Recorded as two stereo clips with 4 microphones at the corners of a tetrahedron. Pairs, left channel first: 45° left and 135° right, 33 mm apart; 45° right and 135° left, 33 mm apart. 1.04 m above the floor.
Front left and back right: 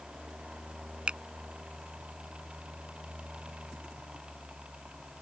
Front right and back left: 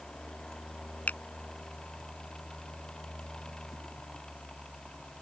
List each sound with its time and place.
1.1 s a finger snap: 80° right